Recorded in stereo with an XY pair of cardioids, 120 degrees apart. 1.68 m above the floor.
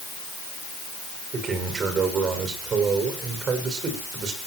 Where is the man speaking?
45° right, 7 m.